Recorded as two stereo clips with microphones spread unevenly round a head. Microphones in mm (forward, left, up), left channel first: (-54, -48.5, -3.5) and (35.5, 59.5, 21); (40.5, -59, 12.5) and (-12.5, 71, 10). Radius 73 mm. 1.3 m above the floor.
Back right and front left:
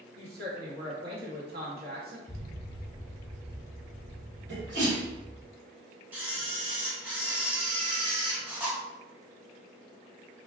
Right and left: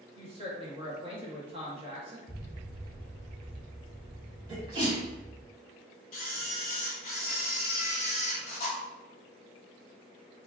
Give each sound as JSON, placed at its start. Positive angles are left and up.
{"t": 0.1, "sound": "a woman speaking", "azimuth_deg": 60, "distance_m": 1.4}
{"t": 2.3, "sound": "an explosion", "azimuth_deg": 180, "distance_m": 0.7}
{"t": 4.5, "sound": "a sneeze", "azimuth_deg": 60, "distance_m": 1.7}
{"t": 6.1, "sound": "a camera shutter", "azimuth_deg": -35, "distance_m": 0.9}